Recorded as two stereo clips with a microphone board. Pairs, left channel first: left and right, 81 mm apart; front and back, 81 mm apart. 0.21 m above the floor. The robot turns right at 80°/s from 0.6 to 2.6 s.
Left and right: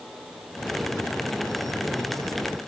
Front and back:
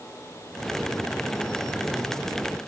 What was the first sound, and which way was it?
Only background noise.